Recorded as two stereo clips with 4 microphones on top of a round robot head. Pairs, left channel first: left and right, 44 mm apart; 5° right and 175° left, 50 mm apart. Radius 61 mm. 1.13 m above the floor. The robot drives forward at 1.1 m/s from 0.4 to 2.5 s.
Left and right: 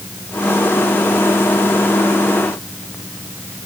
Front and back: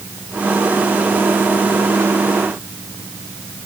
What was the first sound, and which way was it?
Only background noise.